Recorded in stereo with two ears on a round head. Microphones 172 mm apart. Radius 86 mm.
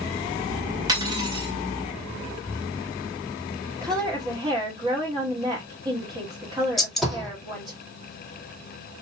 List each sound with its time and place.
0.9 s cutlery clinking: 20° right (ahead or behind), 2.0 m
3.8 s a woman speaking: 20° right (ahead or behind), 2.5 m
6.8 s a gunshot: centre (ahead or behind), 2.5 m